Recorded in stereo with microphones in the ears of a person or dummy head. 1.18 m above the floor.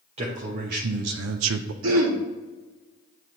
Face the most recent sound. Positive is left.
turn(degrees=-70)  # may be behind; listen again after turning